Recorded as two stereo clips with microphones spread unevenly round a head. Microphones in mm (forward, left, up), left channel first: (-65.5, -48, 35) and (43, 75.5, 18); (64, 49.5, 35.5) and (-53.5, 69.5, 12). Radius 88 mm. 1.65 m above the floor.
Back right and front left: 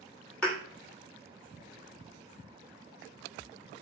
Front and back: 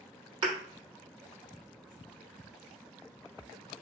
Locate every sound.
0.4 s a thud: 170° left, 1.2 m